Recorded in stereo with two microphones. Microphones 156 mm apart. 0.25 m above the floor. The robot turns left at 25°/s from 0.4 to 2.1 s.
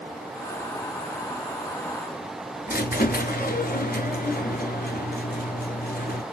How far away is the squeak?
About 0.8 m.